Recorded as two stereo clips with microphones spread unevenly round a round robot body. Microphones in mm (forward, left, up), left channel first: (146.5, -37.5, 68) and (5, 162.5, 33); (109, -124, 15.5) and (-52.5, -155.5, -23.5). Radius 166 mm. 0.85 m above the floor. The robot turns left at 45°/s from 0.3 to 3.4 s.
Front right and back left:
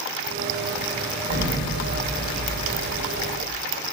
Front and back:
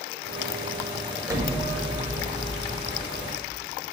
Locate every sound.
1.3 s an explosion: 95° right, 1.7 m; by 3.6 s 170° left, 1.7 m